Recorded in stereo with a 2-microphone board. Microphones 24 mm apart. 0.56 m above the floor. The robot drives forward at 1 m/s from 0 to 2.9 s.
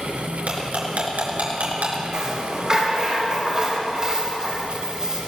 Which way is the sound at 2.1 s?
30° right (ahead or behind).